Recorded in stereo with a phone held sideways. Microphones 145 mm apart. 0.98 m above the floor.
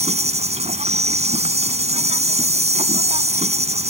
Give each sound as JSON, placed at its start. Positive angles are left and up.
{"t": 0.0, "sound": "an insect", "side_deg": -45}